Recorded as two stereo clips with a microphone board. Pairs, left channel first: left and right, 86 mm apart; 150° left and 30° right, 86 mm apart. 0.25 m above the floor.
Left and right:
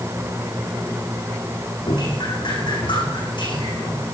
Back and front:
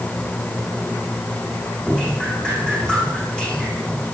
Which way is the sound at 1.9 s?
70° left.